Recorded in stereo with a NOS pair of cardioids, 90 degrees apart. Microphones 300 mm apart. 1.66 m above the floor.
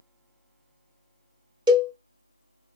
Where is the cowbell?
15° right, 0.9 m.